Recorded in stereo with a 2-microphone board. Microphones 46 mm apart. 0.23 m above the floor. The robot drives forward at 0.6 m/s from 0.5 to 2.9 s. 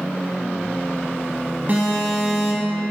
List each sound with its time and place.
1.7 s an alarm: 45° right (ahead or behind), 1.6 m